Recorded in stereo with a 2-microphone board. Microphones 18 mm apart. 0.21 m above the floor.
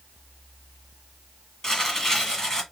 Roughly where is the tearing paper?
Left.